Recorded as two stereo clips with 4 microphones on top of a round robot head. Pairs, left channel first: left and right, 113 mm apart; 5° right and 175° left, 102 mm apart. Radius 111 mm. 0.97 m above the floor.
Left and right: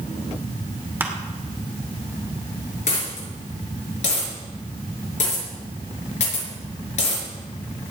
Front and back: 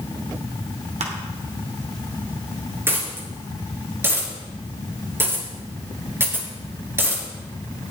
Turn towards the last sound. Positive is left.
turn(degrees=110)